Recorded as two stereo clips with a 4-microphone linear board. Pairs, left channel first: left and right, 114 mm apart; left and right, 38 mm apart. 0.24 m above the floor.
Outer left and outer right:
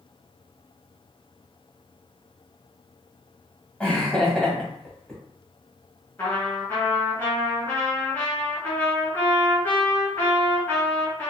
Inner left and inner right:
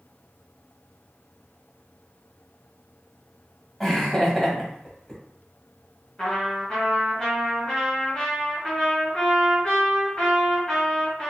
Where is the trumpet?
20° left (ahead or behind), 1.6 m.